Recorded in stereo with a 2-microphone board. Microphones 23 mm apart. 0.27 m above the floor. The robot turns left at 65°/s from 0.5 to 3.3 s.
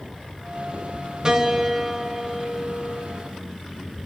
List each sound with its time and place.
1.2 s a piano: 25° right (ahead or behind), 1.3 m; by 3.0 s 20° left (ahead or behind), 1.3 m